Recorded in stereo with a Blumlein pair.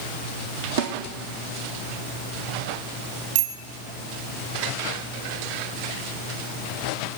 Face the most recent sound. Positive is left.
turn(degrees=-50)